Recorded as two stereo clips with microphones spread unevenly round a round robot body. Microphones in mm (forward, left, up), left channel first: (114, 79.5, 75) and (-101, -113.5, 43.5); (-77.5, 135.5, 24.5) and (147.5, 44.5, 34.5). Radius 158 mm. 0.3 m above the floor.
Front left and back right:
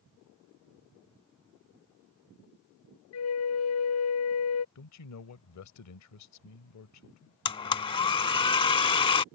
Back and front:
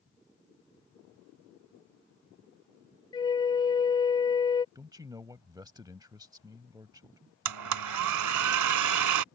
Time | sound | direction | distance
3.1 | a flute | 85° left | ?
4.8 | a man speaking | 50° left | ?
7.5 | a blender | 30° right | ?